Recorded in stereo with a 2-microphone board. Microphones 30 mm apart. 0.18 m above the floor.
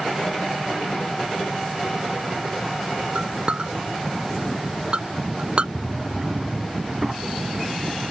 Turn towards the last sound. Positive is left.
turn(degrees=-15)  # may be behind; listen again after turning